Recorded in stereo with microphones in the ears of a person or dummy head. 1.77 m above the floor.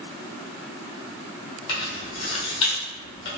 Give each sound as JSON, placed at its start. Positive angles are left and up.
{"t": 1.7, "sound": "keys jangling", "side_deg": 30, "distance_m": 0.7}